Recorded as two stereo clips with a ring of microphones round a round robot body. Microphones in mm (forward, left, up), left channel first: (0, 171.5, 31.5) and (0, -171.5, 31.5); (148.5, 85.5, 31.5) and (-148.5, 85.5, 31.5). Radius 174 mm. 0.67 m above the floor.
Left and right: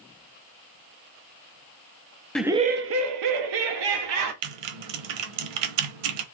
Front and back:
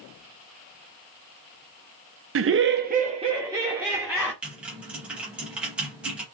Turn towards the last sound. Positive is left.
turn(degrees=-95)